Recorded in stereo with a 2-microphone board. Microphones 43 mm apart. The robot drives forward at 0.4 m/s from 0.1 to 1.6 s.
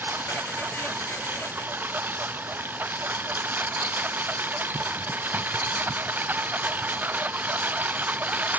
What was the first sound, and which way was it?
A lawn mower, 55° right (ahead or behind).